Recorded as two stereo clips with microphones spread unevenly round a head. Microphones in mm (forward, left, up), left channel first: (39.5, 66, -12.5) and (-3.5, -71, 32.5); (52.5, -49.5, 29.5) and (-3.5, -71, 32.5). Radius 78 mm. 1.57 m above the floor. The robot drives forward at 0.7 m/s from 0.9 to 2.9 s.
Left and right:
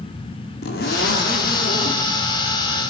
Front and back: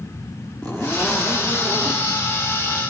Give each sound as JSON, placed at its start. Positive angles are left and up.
{"t": 0.6, "sound": "a zipper", "azimuth_deg": 105, "distance_m": 3.0}